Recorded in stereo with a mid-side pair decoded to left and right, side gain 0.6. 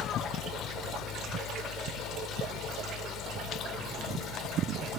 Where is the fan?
60° left.